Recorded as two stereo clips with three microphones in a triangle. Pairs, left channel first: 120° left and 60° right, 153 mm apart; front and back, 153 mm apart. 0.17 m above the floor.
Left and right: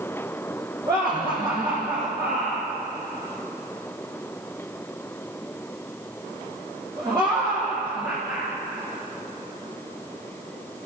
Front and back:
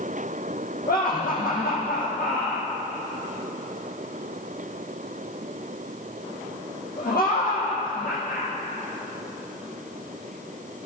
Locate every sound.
0.9 s laughter: 5° left, 7 m